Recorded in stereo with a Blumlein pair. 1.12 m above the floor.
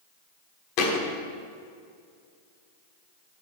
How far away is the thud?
About 1.4 m.